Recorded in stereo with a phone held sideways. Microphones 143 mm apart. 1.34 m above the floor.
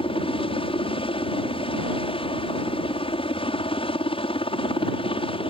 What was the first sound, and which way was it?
A helicopter, 40° left (ahead or behind).